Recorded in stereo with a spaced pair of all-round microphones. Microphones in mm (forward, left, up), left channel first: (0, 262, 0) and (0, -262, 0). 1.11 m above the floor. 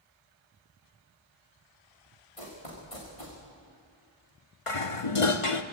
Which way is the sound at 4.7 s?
70° left (ahead or behind).